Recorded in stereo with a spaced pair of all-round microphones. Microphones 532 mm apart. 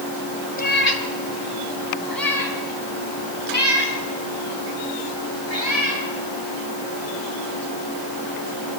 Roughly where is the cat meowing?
Centre.